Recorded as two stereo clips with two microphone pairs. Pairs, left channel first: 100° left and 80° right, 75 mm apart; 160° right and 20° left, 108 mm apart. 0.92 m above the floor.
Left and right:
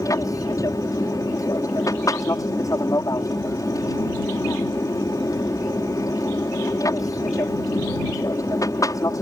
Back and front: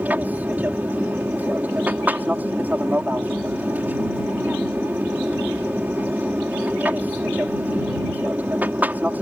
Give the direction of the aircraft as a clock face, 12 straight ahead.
9 o'clock.